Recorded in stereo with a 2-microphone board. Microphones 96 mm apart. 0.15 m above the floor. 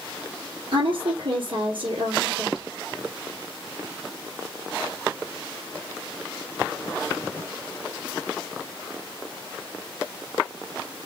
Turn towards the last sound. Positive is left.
turn(degrees=-60)  # may be behind; listen again after turning